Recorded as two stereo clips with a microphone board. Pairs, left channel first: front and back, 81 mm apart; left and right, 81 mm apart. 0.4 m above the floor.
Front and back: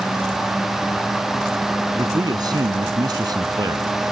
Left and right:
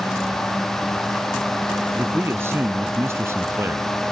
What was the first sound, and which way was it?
A man speaking, 150° right.